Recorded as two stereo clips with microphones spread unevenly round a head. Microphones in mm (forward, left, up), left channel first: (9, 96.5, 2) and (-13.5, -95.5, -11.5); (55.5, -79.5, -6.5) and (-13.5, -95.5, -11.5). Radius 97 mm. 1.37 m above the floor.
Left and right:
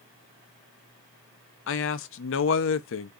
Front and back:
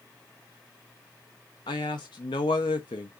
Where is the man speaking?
60° left, 0.5 m.